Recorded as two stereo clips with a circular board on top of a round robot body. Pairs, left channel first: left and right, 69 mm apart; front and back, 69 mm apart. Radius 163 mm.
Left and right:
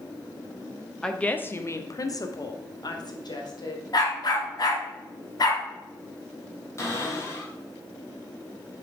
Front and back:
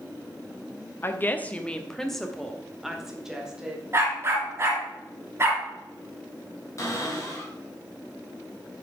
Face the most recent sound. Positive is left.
turn(degrees=45)